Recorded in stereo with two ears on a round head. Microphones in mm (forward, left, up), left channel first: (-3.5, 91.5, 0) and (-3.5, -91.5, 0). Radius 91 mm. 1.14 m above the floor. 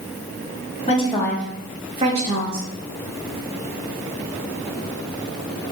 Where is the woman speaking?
30° left (ahead or behind), 1.0 m; by 2.7 s 50° right (ahead or behind), 1.2 m.